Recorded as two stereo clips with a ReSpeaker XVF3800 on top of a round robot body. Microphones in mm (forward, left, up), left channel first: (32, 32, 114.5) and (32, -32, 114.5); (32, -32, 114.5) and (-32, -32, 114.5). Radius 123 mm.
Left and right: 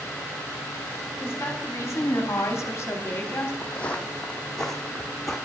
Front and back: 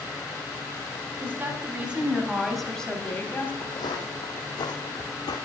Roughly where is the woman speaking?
Behind left.